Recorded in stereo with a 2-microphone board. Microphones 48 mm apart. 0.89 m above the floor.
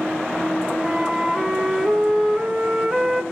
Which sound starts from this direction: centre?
A flute, at 0.8 s.